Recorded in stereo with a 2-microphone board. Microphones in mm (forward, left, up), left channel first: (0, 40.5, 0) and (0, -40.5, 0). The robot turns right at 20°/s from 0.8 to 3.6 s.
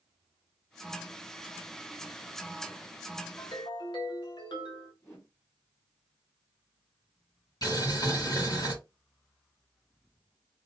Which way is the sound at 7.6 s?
55° left (ahead or behind).